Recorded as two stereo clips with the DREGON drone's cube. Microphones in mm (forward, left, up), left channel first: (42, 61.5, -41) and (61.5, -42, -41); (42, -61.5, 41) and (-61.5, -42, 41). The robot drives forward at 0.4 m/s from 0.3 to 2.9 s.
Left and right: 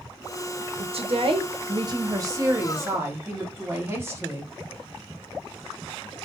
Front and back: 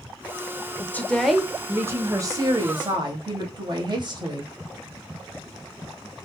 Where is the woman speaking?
80° right, 0.6 m; by 4.5 s 145° right, 0.9 m.